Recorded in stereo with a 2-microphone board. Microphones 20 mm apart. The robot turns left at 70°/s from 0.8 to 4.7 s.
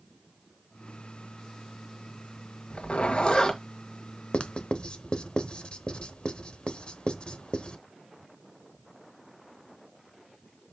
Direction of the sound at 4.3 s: 60° left (ahead or behind).